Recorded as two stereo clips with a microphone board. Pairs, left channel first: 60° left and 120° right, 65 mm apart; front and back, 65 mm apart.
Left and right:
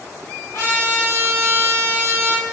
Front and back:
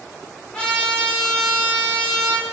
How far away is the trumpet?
About 0.9 m.